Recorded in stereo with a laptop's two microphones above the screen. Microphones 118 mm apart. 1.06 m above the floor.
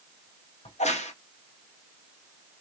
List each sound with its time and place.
0.7 s a crack: 70° left (ahead or behind), 0.9 m